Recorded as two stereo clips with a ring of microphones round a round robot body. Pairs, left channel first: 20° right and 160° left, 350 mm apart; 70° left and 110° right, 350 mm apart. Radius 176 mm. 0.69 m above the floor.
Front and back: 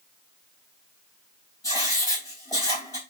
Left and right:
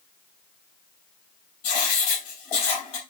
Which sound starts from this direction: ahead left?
Writing, at 1.6 s.